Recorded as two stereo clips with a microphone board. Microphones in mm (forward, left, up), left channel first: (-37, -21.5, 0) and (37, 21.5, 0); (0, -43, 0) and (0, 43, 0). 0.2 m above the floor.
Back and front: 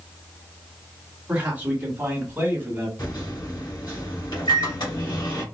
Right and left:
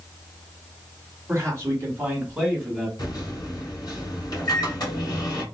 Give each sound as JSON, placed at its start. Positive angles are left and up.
{"t": 1.3, "sound": "a man speaking", "azimuth_deg": 100, "distance_m": 1.7}
{"t": 3.0, "sound": "a microwave", "azimuth_deg": -130, "distance_m": 2.0}